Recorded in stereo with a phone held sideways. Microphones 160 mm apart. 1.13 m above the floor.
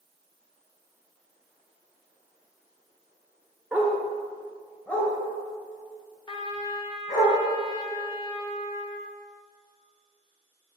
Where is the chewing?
I don't hear chewing.